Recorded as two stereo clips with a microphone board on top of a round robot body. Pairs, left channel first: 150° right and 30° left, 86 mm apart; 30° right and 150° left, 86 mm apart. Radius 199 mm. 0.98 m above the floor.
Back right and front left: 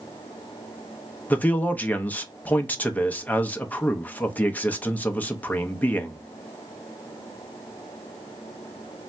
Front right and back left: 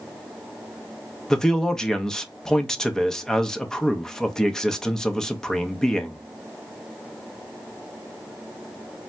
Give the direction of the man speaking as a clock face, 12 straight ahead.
3 o'clock.